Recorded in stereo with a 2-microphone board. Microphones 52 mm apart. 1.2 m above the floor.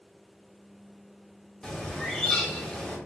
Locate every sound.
1.6 s a bird: 10° left (ahead or behind), 2.5 m